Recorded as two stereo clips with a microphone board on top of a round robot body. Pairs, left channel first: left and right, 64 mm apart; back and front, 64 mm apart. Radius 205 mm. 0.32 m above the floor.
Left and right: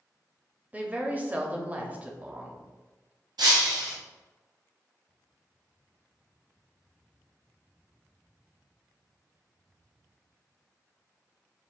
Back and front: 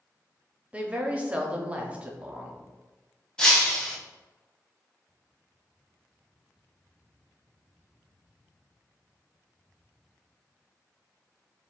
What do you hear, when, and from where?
0.7 s a woman speaking: 50° right, 1.0 m
3.4 s breaking glass: 100° right, 0.9 m